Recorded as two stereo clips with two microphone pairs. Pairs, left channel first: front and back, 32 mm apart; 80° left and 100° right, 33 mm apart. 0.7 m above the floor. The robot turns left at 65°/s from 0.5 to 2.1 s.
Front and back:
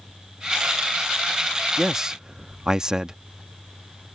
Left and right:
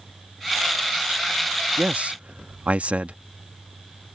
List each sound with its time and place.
1.8 s a man speaking: 95° right; by 3.2 s 115° right